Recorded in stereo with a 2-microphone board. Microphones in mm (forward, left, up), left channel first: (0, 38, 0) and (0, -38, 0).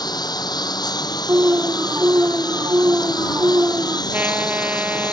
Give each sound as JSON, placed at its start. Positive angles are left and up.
{"t": 0.0, "sound": "a lawn mower", "side_deg": 55}
{"t": 1.3, "sound": "an alarm", "side_deg": -35}
{"t": 4.1, "sound": "a trumpet", "side_deg": -20}